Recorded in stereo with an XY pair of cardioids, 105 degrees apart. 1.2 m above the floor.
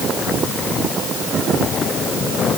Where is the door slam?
I don't hear a door slam.